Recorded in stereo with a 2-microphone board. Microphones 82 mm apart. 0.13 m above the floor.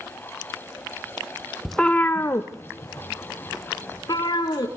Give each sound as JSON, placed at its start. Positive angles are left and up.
{"t": 1.6, "sound": "a cat meowing", "side_deg": 0, "distance_m": 0.7}